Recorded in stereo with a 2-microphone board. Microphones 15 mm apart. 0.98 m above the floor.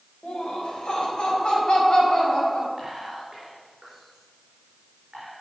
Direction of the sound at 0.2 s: 75° left (ahead or behind).